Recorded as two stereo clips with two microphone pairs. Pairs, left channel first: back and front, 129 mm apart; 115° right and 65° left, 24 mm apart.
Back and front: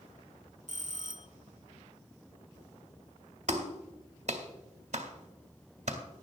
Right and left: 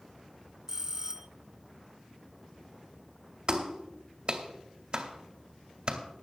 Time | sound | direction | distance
0.7 | a bell | 5° left | 0.8 m
3.5 | a clap | 25° left | 2.0 m